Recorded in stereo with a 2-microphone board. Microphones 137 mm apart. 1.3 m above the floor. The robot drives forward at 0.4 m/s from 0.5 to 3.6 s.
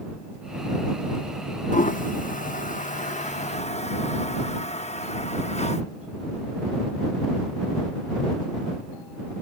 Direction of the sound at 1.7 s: 65° left (ahead or behind).